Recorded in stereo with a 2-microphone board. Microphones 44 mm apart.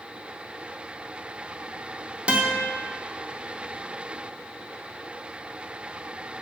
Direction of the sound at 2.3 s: 25° right (ahead or behind).